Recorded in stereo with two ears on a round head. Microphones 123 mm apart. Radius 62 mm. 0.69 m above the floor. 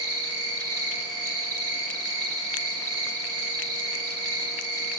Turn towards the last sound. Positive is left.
turn(degrees=-30)  # may be behind; listen again after turning